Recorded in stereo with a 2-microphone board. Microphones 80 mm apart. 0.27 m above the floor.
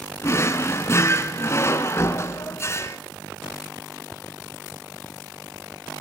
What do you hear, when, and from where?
0.2 s a drawer: 35° left (ahead or behind), 1.9 m